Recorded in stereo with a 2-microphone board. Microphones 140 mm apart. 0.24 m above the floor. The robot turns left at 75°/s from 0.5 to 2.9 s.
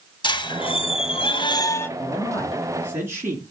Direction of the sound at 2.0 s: 50° left.